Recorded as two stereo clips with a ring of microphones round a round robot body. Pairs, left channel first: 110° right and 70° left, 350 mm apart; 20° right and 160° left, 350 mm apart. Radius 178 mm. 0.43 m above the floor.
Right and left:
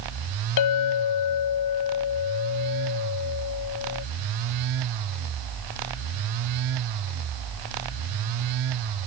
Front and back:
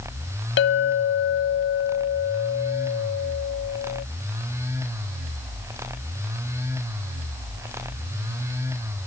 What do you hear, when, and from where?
0.6 s a clink: 80° right